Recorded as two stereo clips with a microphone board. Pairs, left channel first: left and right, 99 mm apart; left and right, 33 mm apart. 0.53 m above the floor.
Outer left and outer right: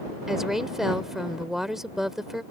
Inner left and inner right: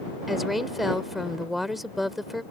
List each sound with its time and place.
0.3 s a woman speaking: 5° right (ahead or behind)